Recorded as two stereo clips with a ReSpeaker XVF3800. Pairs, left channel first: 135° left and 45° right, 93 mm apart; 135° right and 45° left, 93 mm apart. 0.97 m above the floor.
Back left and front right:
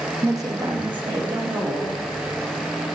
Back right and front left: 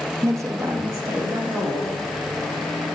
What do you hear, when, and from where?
0.2 s a woman speaking: straight ahead, 0.6 m; by 2.0 s 15° right, 2.5 m